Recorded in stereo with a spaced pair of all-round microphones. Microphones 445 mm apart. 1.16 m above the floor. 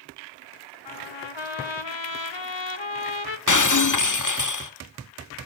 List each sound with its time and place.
0.8 s a trumpet: 75° left (ahead or behind), 1.3 m
3.5 s breaking glass: 40° left (ahead or behind), 0.8 m